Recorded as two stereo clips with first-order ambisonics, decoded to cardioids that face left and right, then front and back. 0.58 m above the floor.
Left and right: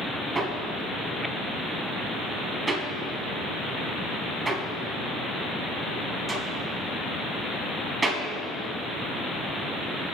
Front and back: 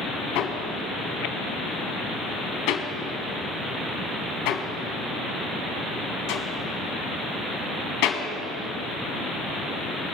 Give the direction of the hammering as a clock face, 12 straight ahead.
1 o'clock.